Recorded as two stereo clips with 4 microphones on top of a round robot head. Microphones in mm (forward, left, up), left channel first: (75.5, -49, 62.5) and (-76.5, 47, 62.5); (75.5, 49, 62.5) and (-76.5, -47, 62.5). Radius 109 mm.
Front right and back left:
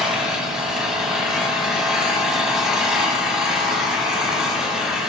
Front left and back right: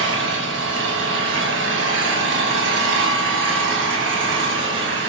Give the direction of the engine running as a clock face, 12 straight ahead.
4 o'clock.